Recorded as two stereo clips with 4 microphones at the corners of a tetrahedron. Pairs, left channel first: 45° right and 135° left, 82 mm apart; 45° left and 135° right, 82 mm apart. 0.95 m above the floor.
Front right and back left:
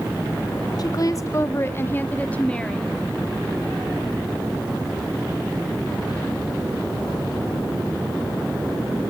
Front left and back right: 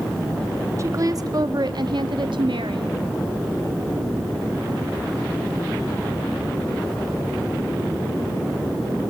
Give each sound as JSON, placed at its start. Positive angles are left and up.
{"t": 0.8, "sound": "a woman speaking", "azimuth_deg": -80, "distance_m": 1.4}